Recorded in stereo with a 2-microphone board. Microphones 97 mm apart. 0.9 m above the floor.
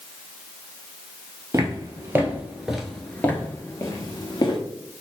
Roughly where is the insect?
I don't hear an insect.